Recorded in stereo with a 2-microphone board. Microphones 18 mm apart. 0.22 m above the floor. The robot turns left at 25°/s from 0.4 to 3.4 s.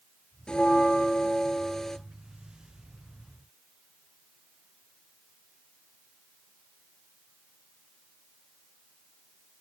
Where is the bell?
55° left, 1.3 m; by 2.0 s 15° left, 1.3 m.